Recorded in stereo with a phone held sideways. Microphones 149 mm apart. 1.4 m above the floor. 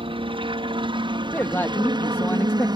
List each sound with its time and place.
0.0 s a helicopter: 35° right (ahead or behind); by 2.8 s 30° right (ahead or behind)
1.3 s a man speaking: 15° left (ahead or behind)